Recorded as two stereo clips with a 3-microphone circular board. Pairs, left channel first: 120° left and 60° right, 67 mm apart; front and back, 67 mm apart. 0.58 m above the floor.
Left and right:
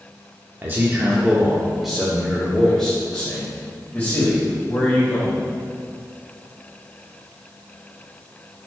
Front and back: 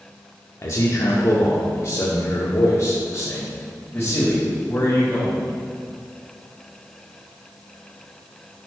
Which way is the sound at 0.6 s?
15° right.